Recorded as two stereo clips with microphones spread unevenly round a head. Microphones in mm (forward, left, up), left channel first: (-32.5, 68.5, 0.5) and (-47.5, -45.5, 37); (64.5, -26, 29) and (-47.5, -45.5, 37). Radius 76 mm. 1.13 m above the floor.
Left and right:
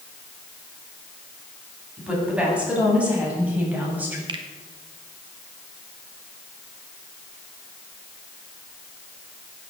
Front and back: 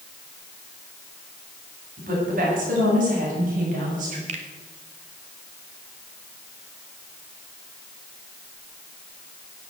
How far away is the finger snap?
About 2 m.